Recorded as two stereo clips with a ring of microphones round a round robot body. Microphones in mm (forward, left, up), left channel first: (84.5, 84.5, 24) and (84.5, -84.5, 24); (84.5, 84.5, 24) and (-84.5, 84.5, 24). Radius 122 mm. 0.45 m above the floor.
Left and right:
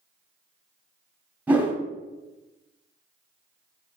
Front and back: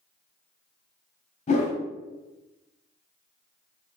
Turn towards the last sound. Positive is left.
turn(degrees=-15)